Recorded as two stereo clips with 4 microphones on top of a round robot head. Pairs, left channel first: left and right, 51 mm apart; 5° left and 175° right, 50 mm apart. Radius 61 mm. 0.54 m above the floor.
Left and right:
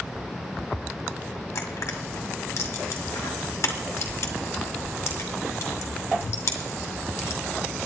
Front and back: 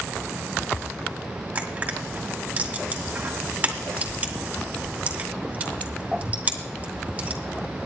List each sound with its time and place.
1.6 s crushing: 125° left, 1.9 m